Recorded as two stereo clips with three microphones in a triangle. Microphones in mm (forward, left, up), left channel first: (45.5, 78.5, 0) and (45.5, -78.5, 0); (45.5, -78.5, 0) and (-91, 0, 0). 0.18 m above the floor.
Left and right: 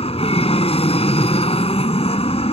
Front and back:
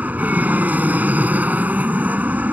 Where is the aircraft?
75° left.